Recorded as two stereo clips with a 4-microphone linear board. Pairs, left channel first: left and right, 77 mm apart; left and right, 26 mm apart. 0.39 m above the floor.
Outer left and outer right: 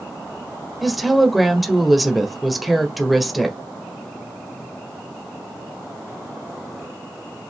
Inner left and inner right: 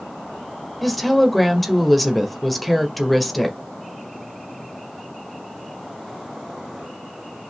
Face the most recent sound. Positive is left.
turn(degrees=0)  # may be behind; listen again after turning